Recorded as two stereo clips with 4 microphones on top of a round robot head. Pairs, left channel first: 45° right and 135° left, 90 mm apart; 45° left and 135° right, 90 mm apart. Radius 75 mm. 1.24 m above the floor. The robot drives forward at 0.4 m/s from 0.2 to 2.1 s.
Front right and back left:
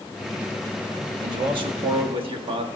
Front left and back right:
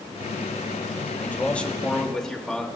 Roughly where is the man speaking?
Left.